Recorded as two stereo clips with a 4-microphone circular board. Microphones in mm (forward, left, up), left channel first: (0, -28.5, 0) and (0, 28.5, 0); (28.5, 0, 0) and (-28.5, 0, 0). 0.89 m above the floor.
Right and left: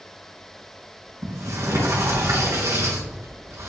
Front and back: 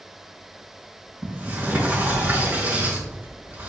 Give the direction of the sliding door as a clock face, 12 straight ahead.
8 o'clock.